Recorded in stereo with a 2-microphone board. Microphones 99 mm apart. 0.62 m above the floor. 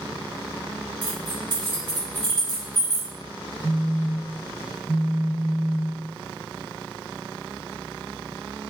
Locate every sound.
1.0 s keys jangling: 45° right (ahead or behind), 1.1 m
3.6 s a phone buzzing: 20° left (ahead or behind), 1.5 m